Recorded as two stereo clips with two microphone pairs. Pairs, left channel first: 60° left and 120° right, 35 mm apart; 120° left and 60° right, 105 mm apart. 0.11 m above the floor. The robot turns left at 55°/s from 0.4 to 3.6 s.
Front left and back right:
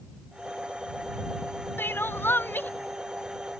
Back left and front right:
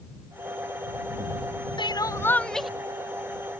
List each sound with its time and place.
1.8 s crying: 80° left; by 2.7 s 30° left